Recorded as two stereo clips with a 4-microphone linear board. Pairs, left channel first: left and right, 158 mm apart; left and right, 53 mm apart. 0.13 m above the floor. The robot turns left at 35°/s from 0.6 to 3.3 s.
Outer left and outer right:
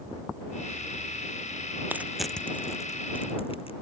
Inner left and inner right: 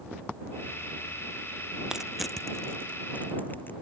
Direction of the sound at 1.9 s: 10° right (ahead or behind).